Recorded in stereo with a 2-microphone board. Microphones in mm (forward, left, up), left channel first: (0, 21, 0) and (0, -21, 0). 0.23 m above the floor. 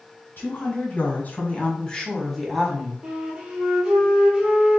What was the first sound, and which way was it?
A woman speaking, 55° left (ahead or behind).